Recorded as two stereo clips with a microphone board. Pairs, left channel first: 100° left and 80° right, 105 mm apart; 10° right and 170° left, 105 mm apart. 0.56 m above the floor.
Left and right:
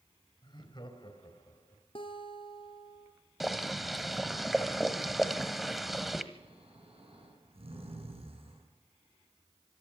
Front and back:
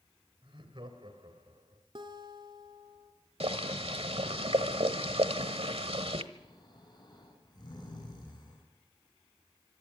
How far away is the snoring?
About 7.5 m.